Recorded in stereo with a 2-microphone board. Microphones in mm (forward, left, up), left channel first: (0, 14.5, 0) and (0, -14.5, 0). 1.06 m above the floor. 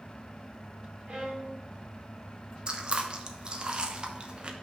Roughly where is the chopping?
No chopping in this recording.